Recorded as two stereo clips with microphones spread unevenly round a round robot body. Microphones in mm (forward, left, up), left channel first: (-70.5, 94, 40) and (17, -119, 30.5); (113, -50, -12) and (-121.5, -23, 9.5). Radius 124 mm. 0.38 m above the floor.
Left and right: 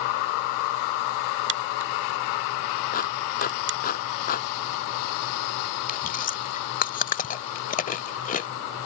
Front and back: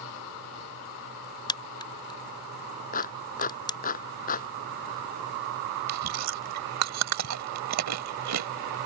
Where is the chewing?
165° left.